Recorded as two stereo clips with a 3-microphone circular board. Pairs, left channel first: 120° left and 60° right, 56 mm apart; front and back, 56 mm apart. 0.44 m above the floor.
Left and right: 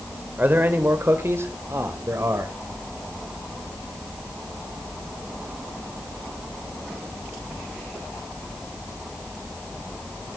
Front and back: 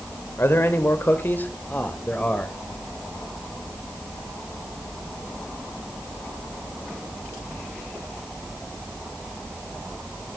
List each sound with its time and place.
0.4 s a man speaking: 20° right, 1.9 m; by 2.5 s 60° right, 2.5 m